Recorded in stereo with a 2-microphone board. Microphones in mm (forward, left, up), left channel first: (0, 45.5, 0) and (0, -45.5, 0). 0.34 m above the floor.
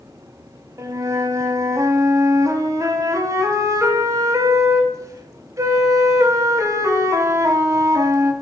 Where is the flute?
40° right (ahead or behind), 0.8 m.